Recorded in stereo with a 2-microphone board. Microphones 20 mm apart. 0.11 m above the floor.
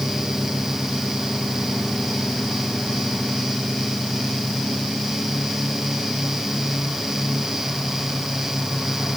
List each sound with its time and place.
Only background noise.